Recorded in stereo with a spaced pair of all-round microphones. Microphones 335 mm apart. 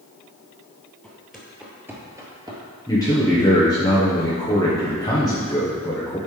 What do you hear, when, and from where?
1.0 s footsteps: centre (ahead or behind), 1.9 m; by 2.6 s 15° right (ahead or behind), 1.8 m
2.9 s a man speaking: 10° left (ahead or behind), 1.2 m